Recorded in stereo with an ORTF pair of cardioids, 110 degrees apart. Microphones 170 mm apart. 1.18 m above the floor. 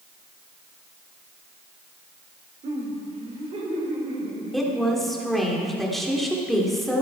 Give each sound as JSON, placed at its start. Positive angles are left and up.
{"t": 2.6, "sound": "laughter", "azimuth_deg": -40, "distance_m": 3.5}
{"t": 4.5, "sound": "a woman speaking", "azimuth_deg": 0, "distance_m": 3.0}